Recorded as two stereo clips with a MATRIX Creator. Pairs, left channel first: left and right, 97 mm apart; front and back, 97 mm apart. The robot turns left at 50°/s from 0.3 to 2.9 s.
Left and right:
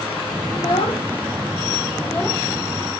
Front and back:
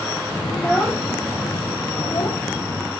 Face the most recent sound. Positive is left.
turn(degrees=-20)